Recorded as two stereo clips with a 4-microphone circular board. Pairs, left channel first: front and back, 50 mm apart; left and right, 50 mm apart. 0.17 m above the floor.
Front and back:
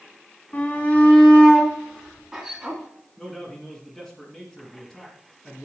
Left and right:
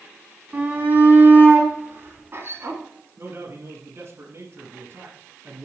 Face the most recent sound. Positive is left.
turn(degrees=-85)